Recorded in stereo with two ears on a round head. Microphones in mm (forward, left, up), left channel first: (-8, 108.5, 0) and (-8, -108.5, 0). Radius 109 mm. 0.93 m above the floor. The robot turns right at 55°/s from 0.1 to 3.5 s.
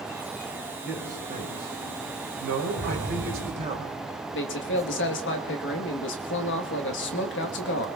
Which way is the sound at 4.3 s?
50° left (ahead or behind).